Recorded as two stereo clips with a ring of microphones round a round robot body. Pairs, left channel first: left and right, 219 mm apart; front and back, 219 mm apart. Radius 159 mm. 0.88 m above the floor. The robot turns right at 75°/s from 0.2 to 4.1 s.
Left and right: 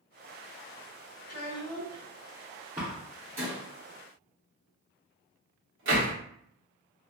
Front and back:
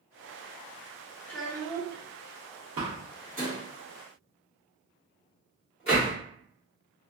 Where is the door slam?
170° right, 1.0 m; by 6.1 s 65° right, 1.0 m.